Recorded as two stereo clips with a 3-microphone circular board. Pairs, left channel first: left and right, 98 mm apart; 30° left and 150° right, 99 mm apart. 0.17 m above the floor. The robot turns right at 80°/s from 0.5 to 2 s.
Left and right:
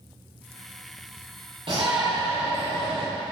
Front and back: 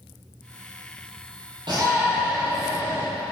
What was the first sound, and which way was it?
A shout, 115° right.